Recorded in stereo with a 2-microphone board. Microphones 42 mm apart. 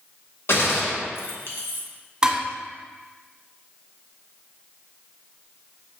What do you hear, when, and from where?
0.5 s a gunshot: 65° left (ahead or behind), 0.8 m
2.2 s dishes clattering: 20° right (ahead or behind), 1.3 m